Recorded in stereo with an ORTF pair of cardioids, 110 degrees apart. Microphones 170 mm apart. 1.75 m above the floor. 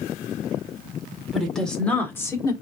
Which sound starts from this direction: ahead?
A woman speaking, at 1.3 s.